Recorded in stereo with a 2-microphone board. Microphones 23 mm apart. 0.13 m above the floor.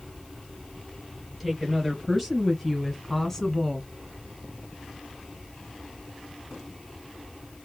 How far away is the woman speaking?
About 2 m.